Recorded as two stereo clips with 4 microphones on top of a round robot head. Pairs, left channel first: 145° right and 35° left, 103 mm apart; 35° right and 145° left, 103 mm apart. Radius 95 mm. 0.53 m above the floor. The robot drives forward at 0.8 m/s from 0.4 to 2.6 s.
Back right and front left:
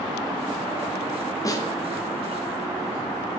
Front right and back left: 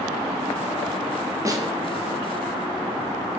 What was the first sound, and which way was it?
A snare drum, straight behind.